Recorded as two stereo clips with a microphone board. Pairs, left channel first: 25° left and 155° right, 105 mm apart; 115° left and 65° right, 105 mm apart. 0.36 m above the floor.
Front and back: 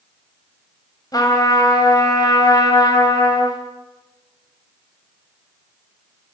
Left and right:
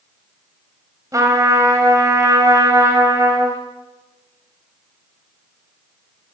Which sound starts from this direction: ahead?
A trumpet, at 1.1 s.